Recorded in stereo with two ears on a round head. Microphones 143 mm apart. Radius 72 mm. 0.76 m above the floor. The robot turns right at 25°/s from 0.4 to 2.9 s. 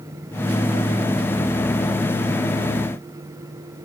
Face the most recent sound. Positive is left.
No sound to turn to.